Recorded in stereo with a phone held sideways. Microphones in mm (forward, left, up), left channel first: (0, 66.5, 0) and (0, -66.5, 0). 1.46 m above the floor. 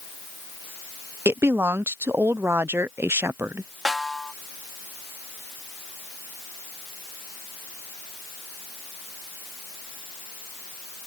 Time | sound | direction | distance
1.2 | a woman speaking | 20° right (ahead or behind) | ?
3.9 | a snare drum | centre (ahead or behind) | ?